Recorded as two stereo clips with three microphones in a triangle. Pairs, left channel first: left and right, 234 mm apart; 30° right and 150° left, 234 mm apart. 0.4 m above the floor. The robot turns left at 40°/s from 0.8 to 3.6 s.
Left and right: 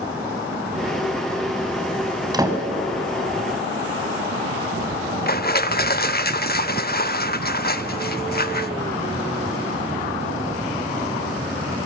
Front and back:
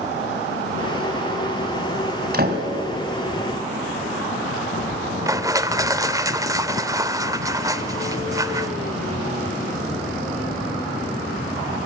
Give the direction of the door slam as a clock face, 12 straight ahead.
5 o'clock.